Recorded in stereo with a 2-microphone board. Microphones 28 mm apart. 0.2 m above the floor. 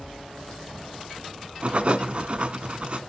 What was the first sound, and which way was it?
Writing, 45° right (ahead or behind).